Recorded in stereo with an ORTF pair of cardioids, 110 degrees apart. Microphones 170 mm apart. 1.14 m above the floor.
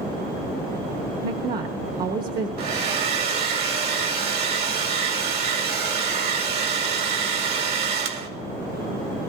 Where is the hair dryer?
65° right, 2 m.